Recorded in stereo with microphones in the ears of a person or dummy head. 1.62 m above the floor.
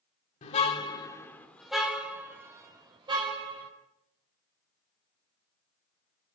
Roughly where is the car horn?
Left.